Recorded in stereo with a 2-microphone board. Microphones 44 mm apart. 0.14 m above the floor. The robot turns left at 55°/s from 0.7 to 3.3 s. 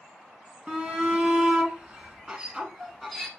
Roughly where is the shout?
Centre.